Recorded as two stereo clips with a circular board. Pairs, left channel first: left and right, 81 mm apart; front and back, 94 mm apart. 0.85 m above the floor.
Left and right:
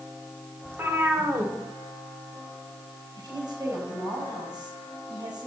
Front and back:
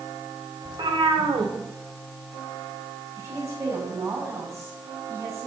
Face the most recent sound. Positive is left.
turn(degrees=-125)